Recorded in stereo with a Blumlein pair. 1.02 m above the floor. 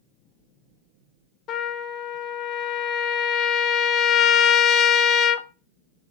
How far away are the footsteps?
I don't hear footsteps.